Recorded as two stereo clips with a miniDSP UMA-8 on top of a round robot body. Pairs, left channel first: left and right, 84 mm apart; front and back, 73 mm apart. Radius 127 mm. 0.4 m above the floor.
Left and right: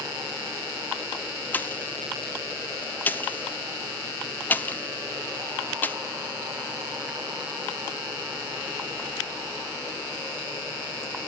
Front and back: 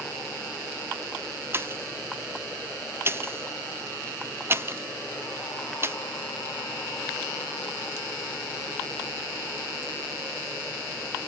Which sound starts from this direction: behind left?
A pop, at 1.5 s.